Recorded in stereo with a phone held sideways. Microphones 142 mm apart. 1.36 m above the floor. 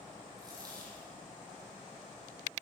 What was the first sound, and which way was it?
A dropped coin, 25° right (ahead or behind).